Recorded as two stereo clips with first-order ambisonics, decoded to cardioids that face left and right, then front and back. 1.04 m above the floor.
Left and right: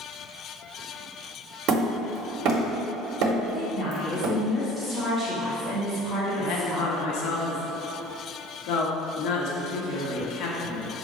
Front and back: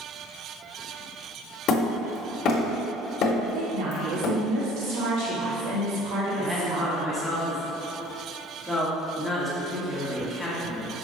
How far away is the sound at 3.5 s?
About 1.9 m.